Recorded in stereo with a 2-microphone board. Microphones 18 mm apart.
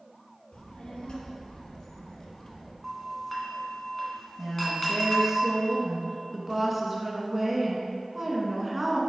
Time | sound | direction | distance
0.5 | a child speaking | 60° left (ahead or behind) | 2.5 m
2.8 | a doorbell | 5° left (ahead or behind) | 1.7 m
4.4 | a woman speaking | 10° right (ahead or behind) | 1.5 m